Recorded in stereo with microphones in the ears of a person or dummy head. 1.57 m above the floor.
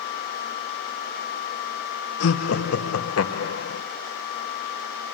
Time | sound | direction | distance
2.2 | laughter | 85° left | 1.7 m